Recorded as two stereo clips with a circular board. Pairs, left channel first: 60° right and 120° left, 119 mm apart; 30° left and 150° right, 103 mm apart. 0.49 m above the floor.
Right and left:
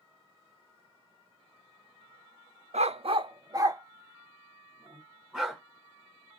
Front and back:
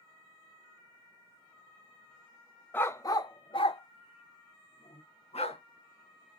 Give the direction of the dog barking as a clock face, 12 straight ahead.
9 o'clock.